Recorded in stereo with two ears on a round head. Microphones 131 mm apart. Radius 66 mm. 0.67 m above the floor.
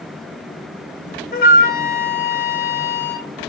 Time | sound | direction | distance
1.3 | a flute | 65° left (ahead or behind) | 2.5 m